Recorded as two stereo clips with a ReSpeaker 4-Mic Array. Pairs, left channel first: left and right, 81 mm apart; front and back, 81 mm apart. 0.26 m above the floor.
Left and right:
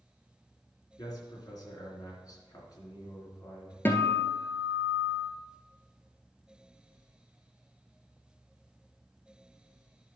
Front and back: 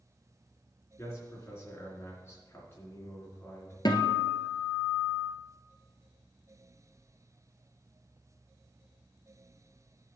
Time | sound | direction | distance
1.0 | a man speaking | 55° left | 3.5 m
3.9 | a guitar | 25° left | 1.6 m